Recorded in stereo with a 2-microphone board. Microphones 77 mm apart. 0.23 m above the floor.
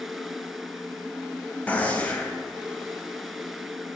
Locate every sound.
1.7 s a gunshot: 20° left (ahead or behind), 0.6 m